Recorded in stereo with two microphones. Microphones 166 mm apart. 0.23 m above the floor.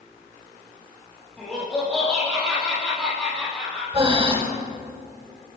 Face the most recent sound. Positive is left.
turn(degrees=-35)  # may be behind; listen again after turning